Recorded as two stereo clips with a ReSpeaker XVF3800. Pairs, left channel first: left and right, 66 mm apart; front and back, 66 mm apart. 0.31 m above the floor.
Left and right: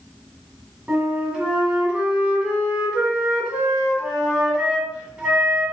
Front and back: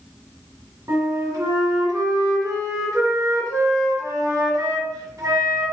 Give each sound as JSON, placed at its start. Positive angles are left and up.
{"t": 0.9, "sound": "a flute", "azimuth_deg": -165, "distance_m": 1.4}